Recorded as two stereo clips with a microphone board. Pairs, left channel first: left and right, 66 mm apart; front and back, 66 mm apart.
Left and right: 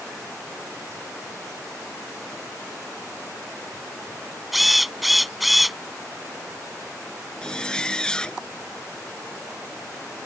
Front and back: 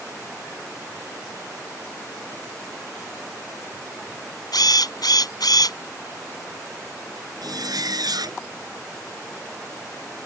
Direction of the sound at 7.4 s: 170° left.